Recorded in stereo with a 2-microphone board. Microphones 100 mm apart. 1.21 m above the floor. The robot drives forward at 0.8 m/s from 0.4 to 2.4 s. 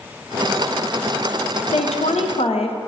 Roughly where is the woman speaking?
Left.